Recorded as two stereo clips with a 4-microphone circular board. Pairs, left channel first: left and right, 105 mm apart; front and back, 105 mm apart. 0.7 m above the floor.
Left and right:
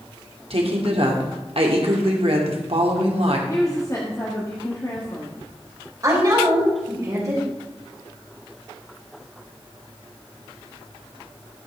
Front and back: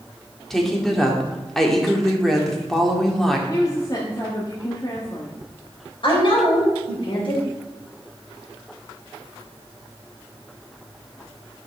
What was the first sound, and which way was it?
A woman speaking, 85° right.